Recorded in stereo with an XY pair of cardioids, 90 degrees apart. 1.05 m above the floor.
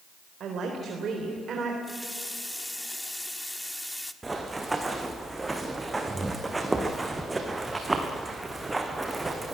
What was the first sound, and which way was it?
A woman speaking, 70° right.